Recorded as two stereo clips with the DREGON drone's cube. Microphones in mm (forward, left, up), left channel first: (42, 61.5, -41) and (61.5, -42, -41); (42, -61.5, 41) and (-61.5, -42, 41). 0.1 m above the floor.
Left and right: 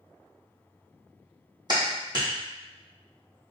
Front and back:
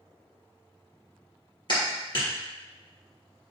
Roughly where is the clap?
Ahead right.